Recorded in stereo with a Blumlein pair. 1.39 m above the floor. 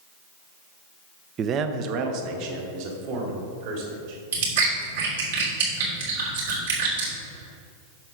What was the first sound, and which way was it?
A man speaking, 25° right.